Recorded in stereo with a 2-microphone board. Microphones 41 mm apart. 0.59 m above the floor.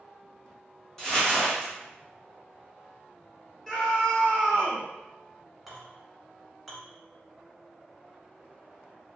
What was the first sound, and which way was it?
Crumpling, 15° left (ahead or behind).